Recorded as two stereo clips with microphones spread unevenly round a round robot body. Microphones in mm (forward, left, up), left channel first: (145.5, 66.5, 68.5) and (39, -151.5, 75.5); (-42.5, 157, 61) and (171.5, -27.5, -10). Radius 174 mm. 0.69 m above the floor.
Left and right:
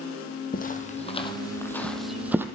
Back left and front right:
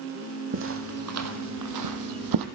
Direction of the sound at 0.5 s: 10° left.